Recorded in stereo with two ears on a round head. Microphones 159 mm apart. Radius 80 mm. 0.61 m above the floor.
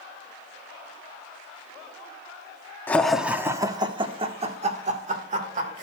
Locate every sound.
2.9 s laughter: 10° left (ahead or behind), 0.6 m; by 5.8 s 45° right (ahead or behind), 1.8 m